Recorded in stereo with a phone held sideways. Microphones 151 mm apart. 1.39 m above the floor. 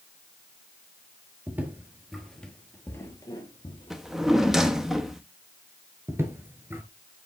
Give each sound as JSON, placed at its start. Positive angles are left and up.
{"t": 1.5, "sound": "footsteps", "side_deg": -15, "distance_m": 1.5}
{"t": 3.9, "sound": "a drawer", "side_deg": 0, "distance_m": 1.0}
{"t": 6.1, "sound": "footsteps", "side_deg": -15, "distance_m": 1.4}